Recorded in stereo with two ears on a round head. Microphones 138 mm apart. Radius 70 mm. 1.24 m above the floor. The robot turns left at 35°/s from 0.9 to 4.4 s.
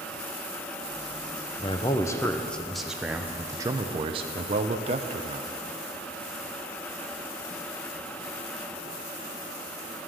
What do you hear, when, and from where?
1.6 s a man speaking: 40° left, 0.6 m; by 5.5 s 55° right, 0.6 m